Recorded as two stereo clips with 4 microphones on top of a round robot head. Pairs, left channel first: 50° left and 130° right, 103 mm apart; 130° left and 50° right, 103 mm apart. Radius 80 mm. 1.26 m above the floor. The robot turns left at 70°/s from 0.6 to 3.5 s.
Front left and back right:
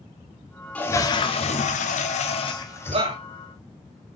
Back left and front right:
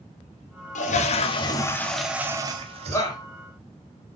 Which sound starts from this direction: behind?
A shout, at 2.9 s.